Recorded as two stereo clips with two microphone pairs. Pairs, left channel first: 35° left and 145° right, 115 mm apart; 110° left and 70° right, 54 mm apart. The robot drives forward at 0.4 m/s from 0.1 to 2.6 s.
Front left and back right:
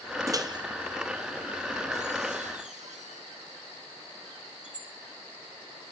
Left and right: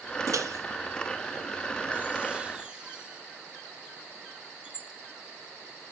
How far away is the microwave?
About 0.7 m.